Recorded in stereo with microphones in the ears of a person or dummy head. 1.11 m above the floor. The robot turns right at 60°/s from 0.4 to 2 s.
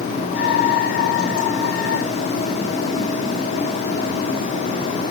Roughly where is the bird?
No bird in this recording.